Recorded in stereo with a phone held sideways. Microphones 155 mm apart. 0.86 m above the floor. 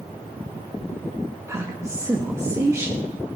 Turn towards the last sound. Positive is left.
turn(degrees=-20)  # may be behind; listen again after turning